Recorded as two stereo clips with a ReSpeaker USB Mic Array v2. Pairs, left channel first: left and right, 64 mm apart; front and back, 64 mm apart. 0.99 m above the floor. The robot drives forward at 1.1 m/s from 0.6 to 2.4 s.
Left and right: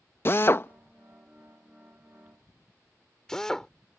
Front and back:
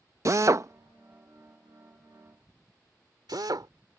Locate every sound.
0.2 s a drill: 140° left; by 3.7 s 170° left